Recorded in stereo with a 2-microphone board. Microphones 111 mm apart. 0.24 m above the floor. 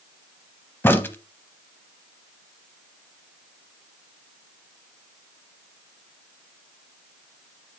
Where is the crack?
20° left (ahead or behind), 0.5 m.